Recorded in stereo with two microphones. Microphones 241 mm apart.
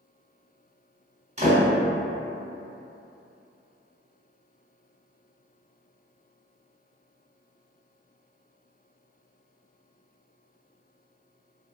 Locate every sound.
1.4 s a door slam: 25° right (ahead or behind), 1.2 m